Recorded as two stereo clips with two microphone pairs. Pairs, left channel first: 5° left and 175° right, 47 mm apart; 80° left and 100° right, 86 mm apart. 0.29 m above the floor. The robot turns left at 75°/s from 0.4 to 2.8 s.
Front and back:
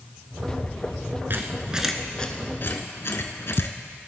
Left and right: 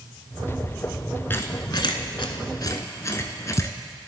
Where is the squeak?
145° left, 0.7 m; by 3.8 s 30° left, 0.7 m.